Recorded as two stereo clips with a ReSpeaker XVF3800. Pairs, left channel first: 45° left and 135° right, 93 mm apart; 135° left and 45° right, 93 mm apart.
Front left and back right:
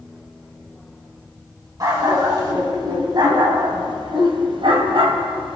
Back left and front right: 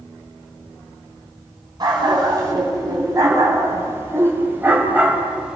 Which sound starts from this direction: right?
A dog barking, at 1.8 s.